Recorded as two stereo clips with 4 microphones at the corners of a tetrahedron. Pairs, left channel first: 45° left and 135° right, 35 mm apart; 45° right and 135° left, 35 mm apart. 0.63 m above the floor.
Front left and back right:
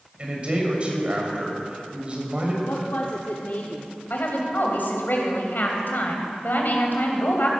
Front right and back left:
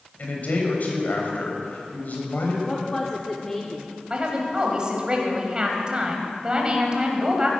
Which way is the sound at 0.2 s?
75° right.